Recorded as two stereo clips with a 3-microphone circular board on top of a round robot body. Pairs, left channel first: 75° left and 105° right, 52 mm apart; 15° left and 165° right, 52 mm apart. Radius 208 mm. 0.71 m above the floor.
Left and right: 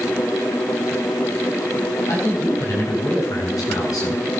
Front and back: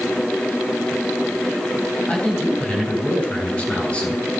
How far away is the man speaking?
About 8 m.